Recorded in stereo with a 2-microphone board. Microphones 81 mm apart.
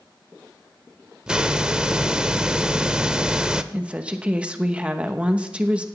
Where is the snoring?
I don't hear snoring.